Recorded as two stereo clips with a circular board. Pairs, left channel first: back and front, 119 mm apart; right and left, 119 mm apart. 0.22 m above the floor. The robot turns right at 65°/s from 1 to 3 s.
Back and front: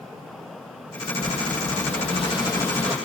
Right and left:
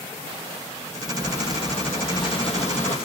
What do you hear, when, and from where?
1.2 s breathing: 155° left, 4 m; by 3.0 s 90° right, 4 m